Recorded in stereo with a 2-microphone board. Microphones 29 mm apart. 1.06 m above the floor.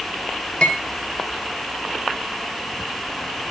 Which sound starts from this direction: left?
Cutlery clinking, at 0.6 s.